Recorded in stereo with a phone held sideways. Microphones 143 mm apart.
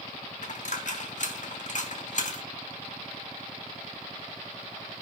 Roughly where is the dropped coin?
Left.